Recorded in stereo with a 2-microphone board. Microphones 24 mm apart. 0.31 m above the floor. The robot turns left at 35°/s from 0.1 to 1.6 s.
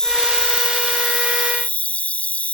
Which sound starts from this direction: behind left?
An insect, at 0.0 s.